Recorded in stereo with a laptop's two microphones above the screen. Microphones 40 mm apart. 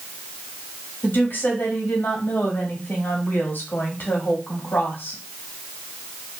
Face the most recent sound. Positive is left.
turn(degrees=65)  # may be behind; listen again after turning